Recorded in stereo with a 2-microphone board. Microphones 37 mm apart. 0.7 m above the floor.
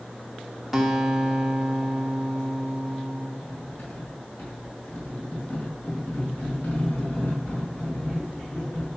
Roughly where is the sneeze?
I don't hear a sneeze.